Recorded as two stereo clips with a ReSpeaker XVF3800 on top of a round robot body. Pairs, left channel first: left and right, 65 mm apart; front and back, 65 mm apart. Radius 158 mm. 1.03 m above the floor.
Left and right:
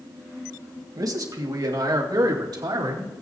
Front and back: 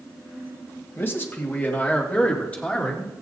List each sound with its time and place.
1.0 s a man speaking: 55° right, 1.8 m; by 3.1 s 75° right, 3 m